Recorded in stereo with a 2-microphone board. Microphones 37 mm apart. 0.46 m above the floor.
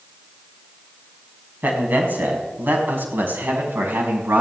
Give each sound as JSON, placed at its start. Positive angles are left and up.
{"t": 1.6, "sound": "a man speaking", "side_deg": -55, "distance_m": 4.5}